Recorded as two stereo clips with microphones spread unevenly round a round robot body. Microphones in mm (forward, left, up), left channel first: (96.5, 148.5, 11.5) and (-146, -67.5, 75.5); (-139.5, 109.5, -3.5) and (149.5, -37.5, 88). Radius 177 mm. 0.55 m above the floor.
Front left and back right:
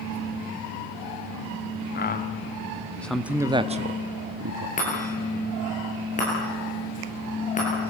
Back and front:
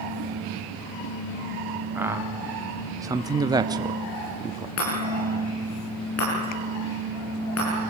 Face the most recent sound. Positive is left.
turn(degrees=110)